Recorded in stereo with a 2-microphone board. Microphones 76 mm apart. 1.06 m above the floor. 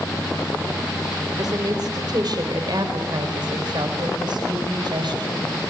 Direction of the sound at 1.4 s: 55° right (ahead or behind).